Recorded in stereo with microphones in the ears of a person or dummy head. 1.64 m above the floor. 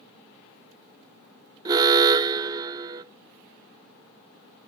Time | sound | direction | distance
1.6 | an alarm | 25° right (ahead or behind) | 0.6 m